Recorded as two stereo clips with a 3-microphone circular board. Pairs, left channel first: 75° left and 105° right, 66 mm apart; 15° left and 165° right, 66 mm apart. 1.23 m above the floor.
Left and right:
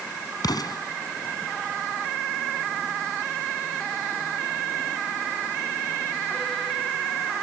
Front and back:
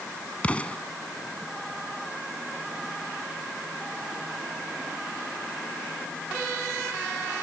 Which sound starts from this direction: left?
An explosion, at 0.4 s.